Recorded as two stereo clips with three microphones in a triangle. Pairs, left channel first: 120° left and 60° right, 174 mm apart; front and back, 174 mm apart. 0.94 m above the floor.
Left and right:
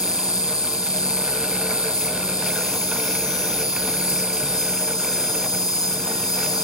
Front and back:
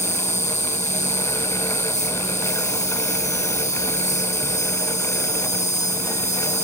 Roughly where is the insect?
Ahead left.